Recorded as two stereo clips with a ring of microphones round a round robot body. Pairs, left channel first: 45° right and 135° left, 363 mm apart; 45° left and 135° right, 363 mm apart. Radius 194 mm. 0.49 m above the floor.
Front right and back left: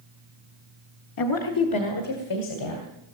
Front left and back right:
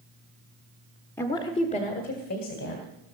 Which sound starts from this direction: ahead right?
A woman speaking, at 1.2 s.